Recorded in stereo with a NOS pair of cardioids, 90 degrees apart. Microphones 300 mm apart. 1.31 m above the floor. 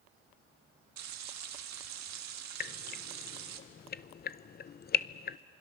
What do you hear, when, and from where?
1.0 s frying: 70° right, 1.8 m
2.6 s dripping: 35° left, 0.6 m